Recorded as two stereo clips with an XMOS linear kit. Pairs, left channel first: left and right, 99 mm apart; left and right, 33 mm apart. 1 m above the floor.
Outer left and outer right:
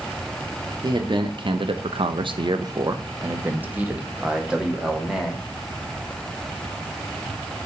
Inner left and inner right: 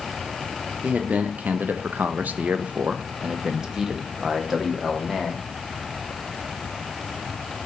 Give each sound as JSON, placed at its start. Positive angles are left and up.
{"t": 0.8, "sound": "a man speaking", "side_deg": -45, "distance_m": 0.9}